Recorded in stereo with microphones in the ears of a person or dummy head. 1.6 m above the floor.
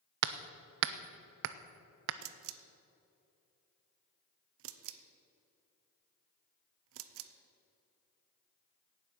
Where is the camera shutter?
65° right (ahead or behind), 0.8 m.